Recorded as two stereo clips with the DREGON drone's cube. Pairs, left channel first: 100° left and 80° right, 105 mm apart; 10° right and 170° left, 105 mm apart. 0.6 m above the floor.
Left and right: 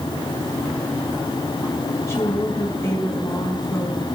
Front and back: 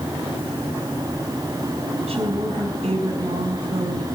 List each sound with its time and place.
2.1 s a woman speaking: 160° left, 4 m